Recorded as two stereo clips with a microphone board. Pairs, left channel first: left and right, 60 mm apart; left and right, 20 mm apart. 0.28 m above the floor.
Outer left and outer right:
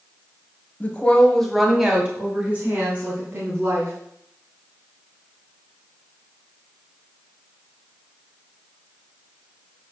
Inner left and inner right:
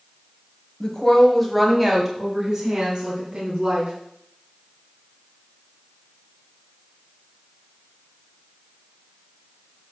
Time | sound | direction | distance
0.8 | a woman speaking | 25° left (ahead or behind) | 1.6 m